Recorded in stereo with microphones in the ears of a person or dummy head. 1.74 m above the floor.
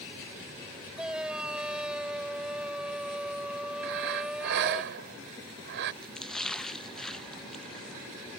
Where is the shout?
10° right (ahead or behind).